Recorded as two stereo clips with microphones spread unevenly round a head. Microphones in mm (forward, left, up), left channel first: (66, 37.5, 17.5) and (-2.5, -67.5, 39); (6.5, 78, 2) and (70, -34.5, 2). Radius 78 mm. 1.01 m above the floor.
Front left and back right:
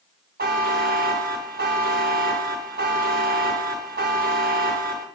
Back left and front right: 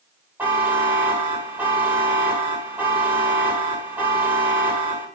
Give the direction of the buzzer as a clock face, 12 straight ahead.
5 o'clock.